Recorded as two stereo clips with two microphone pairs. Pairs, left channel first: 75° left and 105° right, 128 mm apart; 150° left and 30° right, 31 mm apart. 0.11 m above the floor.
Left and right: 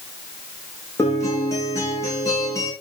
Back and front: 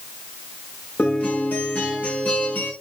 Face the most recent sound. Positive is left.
turn(degrees=145)